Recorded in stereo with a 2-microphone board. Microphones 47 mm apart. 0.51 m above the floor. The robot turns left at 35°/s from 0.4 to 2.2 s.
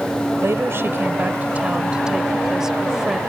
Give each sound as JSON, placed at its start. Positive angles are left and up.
{"t": 0.4, "sound": "a woman speaking", "azimuth_deg": -105}